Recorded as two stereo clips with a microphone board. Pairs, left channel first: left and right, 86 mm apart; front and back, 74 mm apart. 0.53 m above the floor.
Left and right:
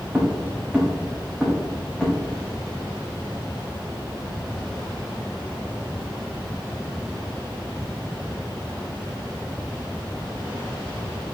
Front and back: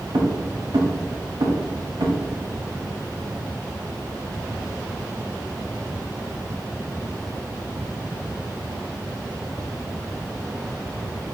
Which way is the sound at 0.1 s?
170° right.